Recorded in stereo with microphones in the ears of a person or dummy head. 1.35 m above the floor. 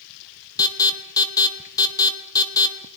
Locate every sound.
0.6 s an alarm: 20° left (ahead or behind), 1.3 m